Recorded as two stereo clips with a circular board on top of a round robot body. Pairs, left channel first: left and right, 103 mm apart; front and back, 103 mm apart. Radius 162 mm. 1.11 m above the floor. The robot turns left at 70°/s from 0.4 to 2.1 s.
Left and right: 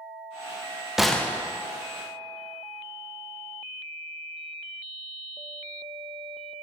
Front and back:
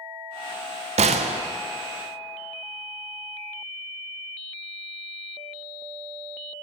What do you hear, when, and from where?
1.0 s a gunshot: 175° right, 0.5 m; by 1.4 s 155° left, 0.5 m